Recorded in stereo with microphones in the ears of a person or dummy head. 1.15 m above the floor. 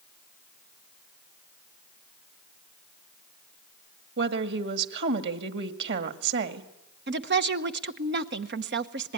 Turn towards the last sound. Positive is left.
turn(degrees=-55)  # may be behind; listen again after turning